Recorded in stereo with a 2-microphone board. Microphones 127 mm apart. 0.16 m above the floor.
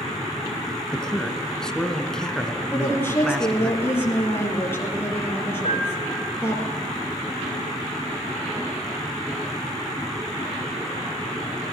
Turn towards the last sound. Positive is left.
turn(degrees=55)  # may be behind; listen again after turning